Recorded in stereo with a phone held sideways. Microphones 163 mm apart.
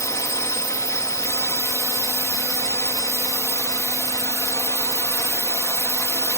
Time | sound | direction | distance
0.0 | a drone | 20° left (ahead or behind) | ?